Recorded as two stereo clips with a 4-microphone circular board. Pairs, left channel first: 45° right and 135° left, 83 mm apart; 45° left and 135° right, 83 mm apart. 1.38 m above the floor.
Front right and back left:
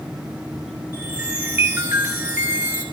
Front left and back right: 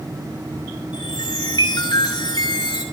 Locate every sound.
0.9 s a chime: 65° left, 4.5 m